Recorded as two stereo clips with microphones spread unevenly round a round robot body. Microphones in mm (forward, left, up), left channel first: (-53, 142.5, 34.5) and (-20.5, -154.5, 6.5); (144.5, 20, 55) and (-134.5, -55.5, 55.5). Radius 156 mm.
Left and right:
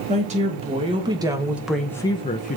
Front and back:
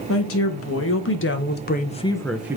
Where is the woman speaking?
20° right, 1.8 m; by 2.6 s 125° left, 0.7 m.